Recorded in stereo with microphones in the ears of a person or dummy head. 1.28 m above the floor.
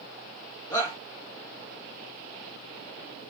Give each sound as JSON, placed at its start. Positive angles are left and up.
{"t": 0.7, "sound": "a shout", "side_deg": 25, "distance_m": 1.3}